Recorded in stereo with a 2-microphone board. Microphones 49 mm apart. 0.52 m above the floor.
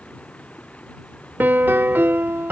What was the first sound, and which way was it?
Running water, 30° left (ahead or behind).